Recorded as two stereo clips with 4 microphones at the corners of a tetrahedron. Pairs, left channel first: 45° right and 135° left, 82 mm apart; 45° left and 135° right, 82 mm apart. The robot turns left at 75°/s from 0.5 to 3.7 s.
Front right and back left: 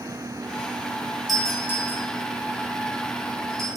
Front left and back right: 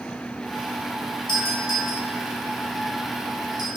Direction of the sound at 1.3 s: 45° left.